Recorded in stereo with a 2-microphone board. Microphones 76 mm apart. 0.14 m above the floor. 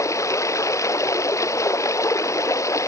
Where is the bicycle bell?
No bicycle bell in this recording.